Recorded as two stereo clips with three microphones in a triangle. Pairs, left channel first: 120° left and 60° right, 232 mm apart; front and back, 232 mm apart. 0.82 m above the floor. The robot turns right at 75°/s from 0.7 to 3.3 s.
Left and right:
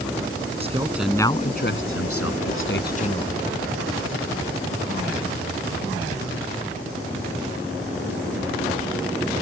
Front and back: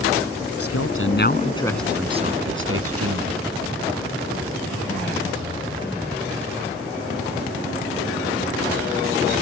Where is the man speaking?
5° left; by 3.4 s 160° right.